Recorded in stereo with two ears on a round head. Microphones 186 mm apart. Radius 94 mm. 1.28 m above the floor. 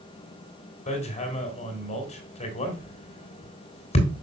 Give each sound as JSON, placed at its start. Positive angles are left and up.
{"t": 0.9, "sound": "hammering", "side_deg": 35, "distance_m": 3.0}